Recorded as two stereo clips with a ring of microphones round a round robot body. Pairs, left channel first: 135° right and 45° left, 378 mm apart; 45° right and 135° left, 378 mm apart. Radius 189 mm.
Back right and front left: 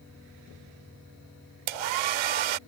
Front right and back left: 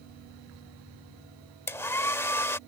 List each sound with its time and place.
1.7 s a hair dryer: 40° left